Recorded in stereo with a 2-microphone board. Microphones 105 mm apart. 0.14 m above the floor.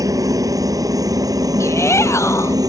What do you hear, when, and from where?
0.0 s a helicopter: 35° right (ahead or behind)
1.6 s a shout: 25° left (ahead or behind)